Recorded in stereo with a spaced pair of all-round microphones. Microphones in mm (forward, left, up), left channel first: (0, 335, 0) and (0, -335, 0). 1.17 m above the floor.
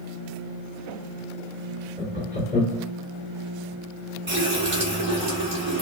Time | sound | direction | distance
2.0 | laughter | 10° left (ahead or behind) | 2.5 m
4.3 | a running tap | 45° right (ahead or behind) | 2.5 m